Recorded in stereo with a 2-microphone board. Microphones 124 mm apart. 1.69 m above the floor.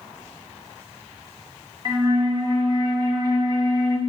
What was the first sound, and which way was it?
A flute, 35° right (ahead or behind).